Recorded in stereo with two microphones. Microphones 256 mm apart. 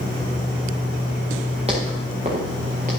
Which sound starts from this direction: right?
Footsteps, at 1.7 s.